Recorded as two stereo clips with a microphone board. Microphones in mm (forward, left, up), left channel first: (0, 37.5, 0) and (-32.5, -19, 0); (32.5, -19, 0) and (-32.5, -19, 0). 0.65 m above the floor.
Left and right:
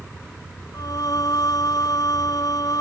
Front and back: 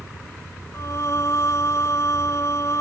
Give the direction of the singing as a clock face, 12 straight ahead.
11 o'clock.